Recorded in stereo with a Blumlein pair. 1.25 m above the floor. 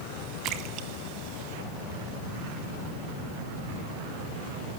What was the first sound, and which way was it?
A splash, 35° right.